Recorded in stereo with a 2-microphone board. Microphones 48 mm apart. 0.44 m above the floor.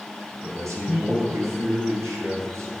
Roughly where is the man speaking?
Right.